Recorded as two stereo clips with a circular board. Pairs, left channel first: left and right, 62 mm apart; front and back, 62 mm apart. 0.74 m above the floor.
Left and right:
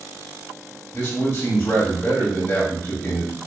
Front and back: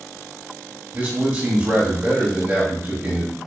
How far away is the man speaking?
About 1.0 m.